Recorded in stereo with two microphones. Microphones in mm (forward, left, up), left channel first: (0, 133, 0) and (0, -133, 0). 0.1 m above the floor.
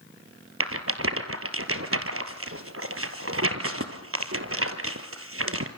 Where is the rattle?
55° right (ahead or behind), 1.8 m.